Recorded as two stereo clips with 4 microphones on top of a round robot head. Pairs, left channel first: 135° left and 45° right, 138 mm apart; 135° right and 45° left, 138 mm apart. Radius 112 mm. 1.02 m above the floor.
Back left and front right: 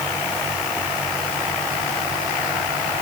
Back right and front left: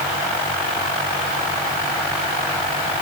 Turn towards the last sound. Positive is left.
No sound to turn to.